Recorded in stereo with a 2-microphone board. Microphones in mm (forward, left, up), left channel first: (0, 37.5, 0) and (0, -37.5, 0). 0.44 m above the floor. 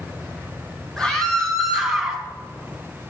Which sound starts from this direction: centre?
A scream, at 1.0 s.